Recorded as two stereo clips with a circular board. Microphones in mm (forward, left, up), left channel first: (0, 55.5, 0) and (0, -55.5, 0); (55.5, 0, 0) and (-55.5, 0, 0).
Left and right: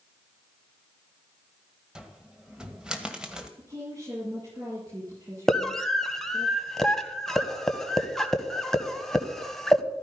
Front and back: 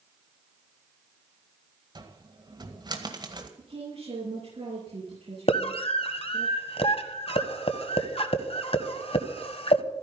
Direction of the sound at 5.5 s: 5° left.